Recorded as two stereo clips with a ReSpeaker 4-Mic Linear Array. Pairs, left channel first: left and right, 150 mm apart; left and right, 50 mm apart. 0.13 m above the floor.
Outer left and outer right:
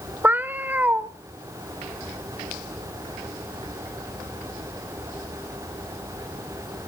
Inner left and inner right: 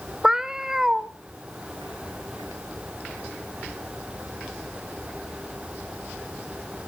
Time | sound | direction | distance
0.2 | a cat meowing | 10° right (ahead or behind) | 0.6 m